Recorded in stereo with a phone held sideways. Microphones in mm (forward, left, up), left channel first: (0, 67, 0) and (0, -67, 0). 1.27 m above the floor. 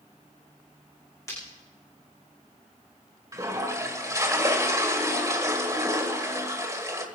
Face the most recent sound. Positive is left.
turn(degrees=-25)  # may be behind; listen again after turning